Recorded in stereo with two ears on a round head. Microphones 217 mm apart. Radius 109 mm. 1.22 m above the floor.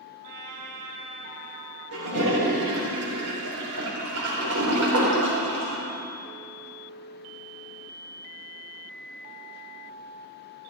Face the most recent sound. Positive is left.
turn(degrees=-70)  # may be behind; listen again after turning